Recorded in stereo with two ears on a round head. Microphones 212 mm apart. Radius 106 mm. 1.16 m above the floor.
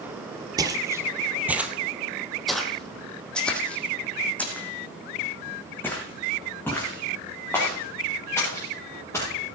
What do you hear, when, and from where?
0.6 s footsteps: 15° right (ahead or behind), 1.2 m; by 9.3 s 10° left (ahead or behind), 6.5 m